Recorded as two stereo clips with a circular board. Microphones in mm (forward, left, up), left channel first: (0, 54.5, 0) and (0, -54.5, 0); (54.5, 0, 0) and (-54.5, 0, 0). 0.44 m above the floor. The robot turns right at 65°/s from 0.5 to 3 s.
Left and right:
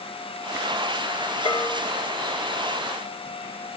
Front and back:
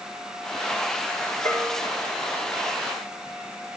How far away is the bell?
About 3 m.